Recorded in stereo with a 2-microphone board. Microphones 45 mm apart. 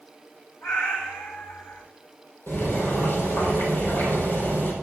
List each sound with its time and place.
0.6 s a cat meowing: 80° left, 5.5 m
2.5 s boiling: 50° left (ahead or behind), 4.5 m